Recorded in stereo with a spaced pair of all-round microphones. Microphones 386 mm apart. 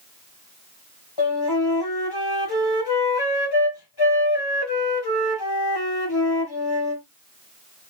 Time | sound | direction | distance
1.2 | a flute | 85° left | 1.3 m